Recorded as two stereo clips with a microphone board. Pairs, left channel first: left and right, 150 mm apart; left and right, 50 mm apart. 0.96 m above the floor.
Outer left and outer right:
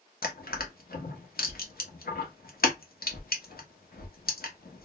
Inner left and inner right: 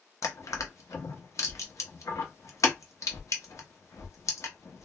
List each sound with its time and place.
0.2 s crushing: 70° left (ahead or behind), 0.7 m